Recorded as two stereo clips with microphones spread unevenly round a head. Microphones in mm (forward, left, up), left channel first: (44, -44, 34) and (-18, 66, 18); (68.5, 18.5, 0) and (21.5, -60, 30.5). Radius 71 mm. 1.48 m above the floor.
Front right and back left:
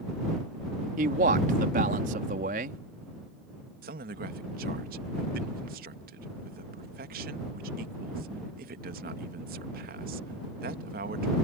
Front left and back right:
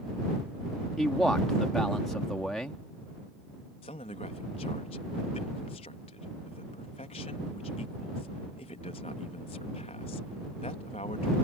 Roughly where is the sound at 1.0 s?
Behind left.